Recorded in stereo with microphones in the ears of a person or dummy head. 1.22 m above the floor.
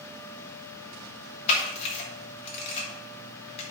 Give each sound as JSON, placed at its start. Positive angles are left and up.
{"t": 1.5, "sound": "a camera shutter", "side_deg": 40, "distance_m": 2.5}